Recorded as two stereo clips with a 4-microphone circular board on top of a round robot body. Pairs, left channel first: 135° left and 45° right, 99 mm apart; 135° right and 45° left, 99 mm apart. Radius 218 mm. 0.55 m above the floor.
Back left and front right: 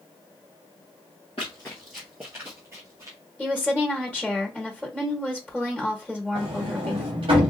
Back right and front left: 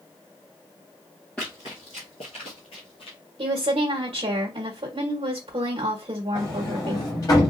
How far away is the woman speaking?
About 1.3 m.